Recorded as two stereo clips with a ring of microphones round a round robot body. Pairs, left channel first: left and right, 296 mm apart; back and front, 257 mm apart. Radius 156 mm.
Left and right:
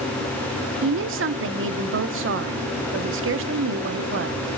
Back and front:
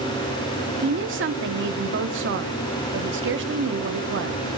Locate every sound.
0.8 s a woman speaking: 45° right, 1.3 m